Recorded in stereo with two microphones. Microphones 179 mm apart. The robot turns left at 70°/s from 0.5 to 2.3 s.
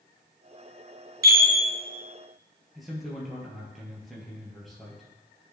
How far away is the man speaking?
About 2.5 m.